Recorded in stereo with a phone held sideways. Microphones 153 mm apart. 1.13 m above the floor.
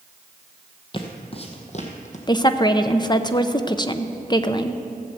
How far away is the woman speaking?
About 0.6 m.